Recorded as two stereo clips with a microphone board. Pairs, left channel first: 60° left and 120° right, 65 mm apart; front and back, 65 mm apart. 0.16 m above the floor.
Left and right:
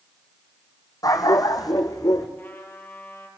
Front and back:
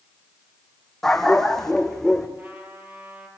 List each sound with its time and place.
1.0 s a dog barking: 85° left, 3 m
2.4 s a trumpet: 120° left, 5 m